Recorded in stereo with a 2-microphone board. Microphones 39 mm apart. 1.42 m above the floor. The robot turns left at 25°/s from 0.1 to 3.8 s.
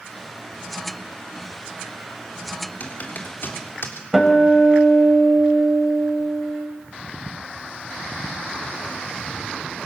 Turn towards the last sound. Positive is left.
turn(degrees=0)  # may be behind; listen again after turning